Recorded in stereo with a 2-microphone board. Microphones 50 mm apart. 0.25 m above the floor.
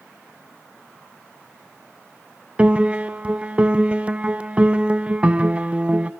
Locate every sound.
2.6 s a piano: 25° right (ahead or behind), 0.7 m